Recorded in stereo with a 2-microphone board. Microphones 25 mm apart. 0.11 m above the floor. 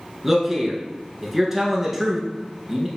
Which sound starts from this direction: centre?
A man speaking, at 0.2 s.